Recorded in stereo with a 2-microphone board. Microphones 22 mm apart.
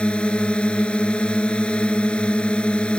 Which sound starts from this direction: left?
A drone, at 0.0 s.